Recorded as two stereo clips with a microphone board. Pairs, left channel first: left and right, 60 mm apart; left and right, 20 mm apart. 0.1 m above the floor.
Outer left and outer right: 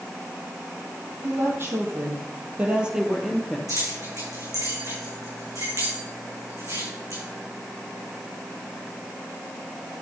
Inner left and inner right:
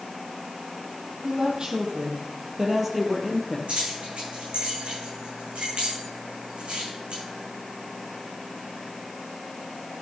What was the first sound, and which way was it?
A woman speaking, 45° right (ahead or behind).